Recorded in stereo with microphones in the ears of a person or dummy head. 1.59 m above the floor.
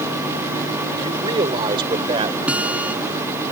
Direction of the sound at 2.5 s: 10° right (ahead or behind).